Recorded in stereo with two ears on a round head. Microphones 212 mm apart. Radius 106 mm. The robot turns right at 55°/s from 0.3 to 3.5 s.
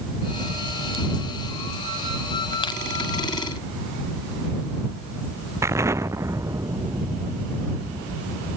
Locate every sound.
2.6 s crushing: 20° left (ahead or behind); by 2.8 s 10° left (ahead or behind)
5.6 s an explosion: 15° right (ahead or behind)